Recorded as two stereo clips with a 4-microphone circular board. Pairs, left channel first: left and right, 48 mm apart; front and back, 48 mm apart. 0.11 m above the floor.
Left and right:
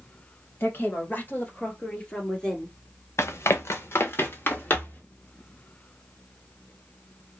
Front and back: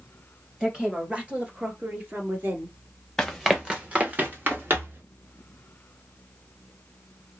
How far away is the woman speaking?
About 2 m.